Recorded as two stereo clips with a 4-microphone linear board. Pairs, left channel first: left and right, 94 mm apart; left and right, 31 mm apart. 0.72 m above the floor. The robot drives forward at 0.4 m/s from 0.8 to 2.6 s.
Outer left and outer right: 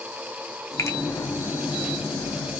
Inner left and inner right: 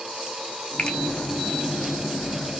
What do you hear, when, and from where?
0.8 s a finger snap: 35° left (ahead or behind), 0.5 m; by 1.0 s 30° left (ahead or behind), 0.6 m